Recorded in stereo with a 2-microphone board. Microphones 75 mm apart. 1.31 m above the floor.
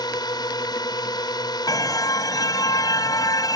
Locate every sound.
0.0 s a drone: 75° left (ahead or behind)
1.7 s a car horn: 60° left (ahead or behind)